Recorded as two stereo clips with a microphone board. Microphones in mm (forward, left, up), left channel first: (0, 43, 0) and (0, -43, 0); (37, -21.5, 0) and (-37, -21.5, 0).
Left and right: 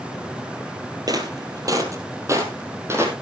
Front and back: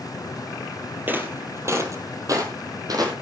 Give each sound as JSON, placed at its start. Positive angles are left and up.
{"t": 1.1, "sound": "footsteps", "azimuth_deg": -120, "distance_m": 2.0}